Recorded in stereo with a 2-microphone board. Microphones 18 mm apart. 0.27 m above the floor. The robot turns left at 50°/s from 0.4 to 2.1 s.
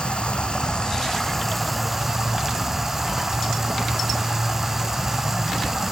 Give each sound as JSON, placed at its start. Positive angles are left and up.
{"t": 0.0, "sound": "running water", "azimuth_deg": 70, "distance_m": 1.6}